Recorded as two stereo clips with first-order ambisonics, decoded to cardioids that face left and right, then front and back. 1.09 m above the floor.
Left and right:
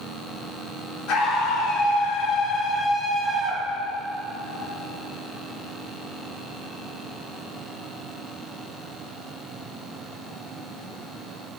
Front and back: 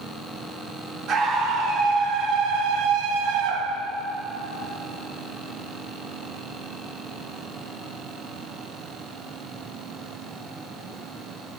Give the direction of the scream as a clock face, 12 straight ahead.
8 o'clock.